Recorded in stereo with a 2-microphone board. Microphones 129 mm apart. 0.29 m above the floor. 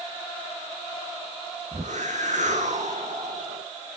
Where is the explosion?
No explosion in this recording.